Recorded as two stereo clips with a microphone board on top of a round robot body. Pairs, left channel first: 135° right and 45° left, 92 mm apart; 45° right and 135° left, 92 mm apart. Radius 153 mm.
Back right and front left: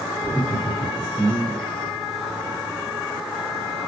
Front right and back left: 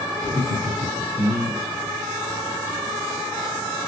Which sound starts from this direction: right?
Laughter, at 0.2 s.